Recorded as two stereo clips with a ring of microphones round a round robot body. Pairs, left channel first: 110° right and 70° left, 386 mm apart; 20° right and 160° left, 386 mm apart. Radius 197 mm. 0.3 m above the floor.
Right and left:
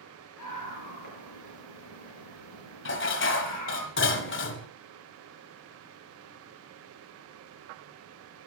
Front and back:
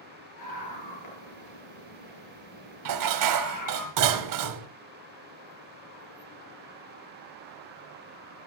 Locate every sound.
0.4 s a scream: 65° right, 7.5 m
2.9 s dishes clattering: 170° right, 1.2 m